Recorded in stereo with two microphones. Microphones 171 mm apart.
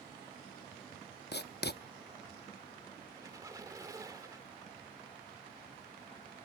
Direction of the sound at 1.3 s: 70° left (ahead or behind).